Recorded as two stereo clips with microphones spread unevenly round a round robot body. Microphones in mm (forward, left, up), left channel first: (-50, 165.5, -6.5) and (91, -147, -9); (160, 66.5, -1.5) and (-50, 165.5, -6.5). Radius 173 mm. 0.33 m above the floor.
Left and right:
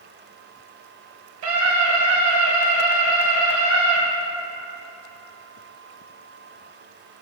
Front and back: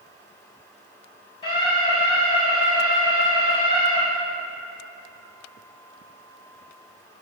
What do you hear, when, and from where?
1.4 s a scream: 95° right, 2.0 m